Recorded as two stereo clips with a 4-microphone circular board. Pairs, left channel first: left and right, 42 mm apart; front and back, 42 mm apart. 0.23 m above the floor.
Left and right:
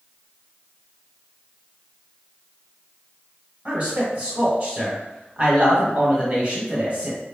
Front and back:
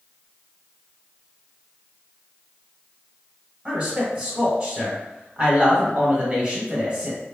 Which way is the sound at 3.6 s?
130° right.